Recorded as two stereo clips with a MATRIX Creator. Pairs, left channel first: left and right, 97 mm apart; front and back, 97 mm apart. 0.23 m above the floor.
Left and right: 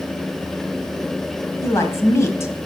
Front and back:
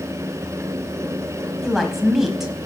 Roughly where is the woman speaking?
Left.